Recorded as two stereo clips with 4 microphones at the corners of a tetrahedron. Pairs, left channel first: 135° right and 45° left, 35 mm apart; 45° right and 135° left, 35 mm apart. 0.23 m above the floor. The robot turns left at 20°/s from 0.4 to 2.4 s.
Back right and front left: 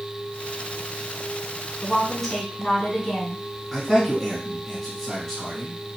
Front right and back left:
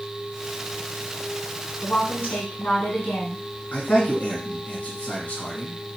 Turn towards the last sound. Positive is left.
turn(degrees=-55)